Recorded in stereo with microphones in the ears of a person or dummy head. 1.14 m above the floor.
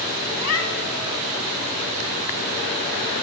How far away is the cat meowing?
About 3 m.